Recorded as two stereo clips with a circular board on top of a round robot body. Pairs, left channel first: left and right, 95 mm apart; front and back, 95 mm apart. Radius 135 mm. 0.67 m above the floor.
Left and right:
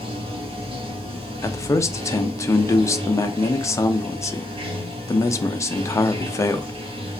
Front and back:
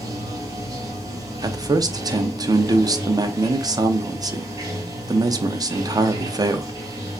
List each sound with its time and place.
0.0 s running water: 120° right, 0.9 m
1.4 s a man speaking: 140° left, 0.7 m